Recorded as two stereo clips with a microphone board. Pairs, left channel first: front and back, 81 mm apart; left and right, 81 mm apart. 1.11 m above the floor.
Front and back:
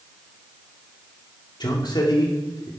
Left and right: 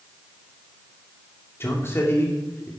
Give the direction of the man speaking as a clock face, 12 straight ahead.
11 o'clock.